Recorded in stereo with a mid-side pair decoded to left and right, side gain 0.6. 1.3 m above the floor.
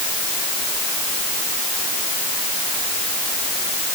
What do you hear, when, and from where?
Only background noise.